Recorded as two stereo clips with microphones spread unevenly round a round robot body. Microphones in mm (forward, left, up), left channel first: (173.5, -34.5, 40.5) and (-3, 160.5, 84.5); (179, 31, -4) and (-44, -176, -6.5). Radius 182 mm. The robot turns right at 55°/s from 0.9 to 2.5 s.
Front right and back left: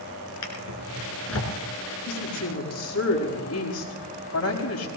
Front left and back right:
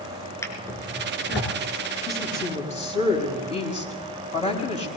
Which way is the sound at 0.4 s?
40° right.